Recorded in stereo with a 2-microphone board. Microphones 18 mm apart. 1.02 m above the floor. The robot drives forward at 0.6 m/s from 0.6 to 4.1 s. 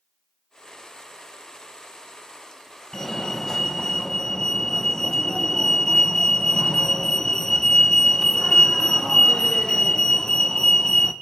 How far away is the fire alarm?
About 1.6 m.